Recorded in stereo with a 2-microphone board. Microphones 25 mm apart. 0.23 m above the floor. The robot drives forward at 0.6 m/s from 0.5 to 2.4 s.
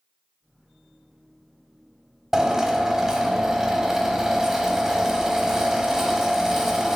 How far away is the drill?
About 0.7 m.